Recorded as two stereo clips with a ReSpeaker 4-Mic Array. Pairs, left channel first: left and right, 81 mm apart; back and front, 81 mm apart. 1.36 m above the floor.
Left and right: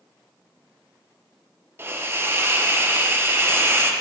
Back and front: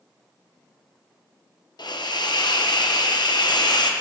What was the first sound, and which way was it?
A hiss, 155° right.